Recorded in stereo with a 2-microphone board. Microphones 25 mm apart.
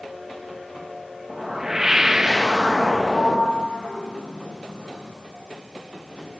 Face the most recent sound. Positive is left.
turn(degrees=70)  # may be behind; listen again after turning